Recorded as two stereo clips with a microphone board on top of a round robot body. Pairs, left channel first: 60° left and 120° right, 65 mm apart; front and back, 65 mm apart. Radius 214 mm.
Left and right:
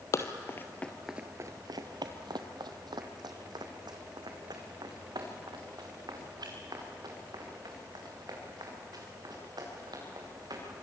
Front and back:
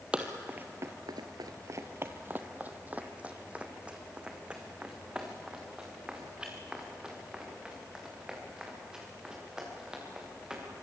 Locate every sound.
0.1 s running footsteps: 105° left, 1.0 m; by 10.6 s 100° right, 7.5 m